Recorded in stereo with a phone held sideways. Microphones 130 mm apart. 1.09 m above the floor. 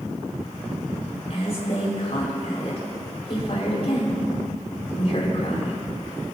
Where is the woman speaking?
55° left (ahead or behind), 5.5 m.